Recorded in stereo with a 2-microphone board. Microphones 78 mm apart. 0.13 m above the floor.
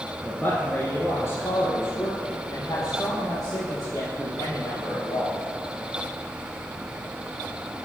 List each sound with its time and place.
0.2 s a man speaking: 20° left (ahead or behind), 1.7 m; by 5.4 s 50° left (ahead or behind), 5 m